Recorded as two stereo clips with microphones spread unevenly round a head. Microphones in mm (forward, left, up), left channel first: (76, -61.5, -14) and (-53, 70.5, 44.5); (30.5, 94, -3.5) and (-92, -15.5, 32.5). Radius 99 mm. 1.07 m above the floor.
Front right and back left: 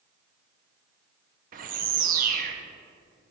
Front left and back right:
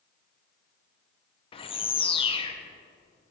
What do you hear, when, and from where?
1.5 s a bird: 100° left, 0.7 m